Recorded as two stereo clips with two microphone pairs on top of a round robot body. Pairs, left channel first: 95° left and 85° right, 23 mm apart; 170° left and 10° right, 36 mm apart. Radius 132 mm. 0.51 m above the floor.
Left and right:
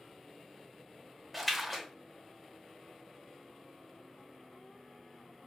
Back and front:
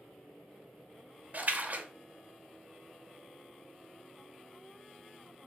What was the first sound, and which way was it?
A splash, 5° left.